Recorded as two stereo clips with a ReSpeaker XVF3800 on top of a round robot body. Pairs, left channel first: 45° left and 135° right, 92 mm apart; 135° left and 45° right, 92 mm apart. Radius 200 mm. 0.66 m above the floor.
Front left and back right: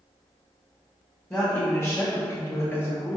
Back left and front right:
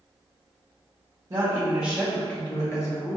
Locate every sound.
1.3 s a woman speaking: 15° right, 1.1 m; by 3.2 s 105° left, 1.3 m